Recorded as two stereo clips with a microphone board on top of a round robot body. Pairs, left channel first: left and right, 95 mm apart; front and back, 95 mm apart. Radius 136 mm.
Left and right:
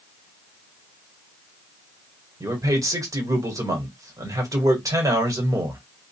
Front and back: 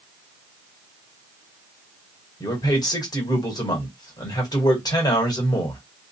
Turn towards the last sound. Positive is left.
turn(degrees=-40)